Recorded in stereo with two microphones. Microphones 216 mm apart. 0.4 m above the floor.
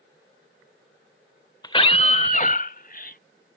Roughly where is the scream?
Centre.